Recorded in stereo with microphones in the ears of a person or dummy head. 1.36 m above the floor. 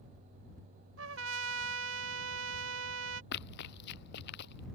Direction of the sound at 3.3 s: 65° left (ahead or behind).